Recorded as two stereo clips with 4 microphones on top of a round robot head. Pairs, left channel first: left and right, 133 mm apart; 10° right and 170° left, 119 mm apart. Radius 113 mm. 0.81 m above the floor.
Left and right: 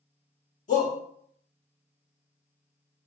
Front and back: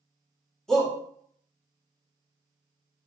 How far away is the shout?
About 2 m.